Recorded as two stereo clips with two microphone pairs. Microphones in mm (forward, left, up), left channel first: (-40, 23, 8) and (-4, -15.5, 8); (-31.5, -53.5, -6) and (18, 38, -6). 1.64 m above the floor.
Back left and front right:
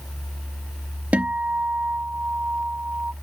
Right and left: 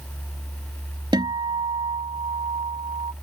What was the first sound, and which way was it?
A guitar, 20° left.